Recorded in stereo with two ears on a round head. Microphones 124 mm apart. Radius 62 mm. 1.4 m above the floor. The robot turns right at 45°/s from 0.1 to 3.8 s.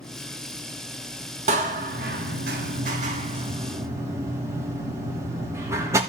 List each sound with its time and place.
1.5 s a door slam: 55° right (ahead or behind), 2.5 m; by 6.0 s 20° right (ahead or behind), 2.5 m